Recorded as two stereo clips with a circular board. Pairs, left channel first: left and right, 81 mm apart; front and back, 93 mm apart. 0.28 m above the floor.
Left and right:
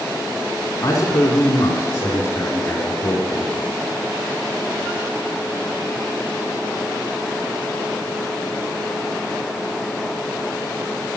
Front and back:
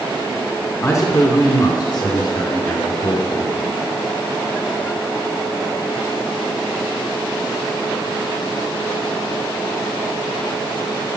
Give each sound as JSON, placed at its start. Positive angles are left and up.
{"t": 0.8, "sound": "a man speaking", "azimuth_deg": 50, "distance_m": 2.5}